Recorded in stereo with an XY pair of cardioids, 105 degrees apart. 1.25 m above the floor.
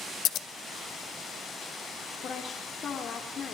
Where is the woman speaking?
55° left, 3.5 m.